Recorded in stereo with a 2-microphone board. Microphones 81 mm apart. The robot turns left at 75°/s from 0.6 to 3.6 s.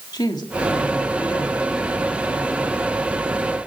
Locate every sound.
0.1 s a woman speaking: 125° left, 2.5 m; by 2.9 s 45° right, 2.5 m